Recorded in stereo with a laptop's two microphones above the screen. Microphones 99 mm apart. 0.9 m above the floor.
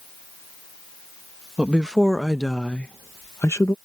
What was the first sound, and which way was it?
A woman speaking, 10° right (ahead or behind).